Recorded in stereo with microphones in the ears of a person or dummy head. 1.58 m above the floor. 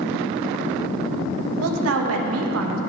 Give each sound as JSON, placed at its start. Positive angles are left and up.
{"t": 1.6, "sound": "a woman speaking", "side_deg": -75, "distance_m": 1.5}